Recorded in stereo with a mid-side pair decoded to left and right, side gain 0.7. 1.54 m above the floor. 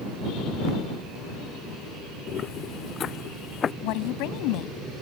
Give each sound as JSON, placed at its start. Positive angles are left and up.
{"t": 2.3, "sound": "footsteps", "azimuth_deg": 40}
{"t": 3.8, "sound": "a woman speaking", "azimuth_deg": 65}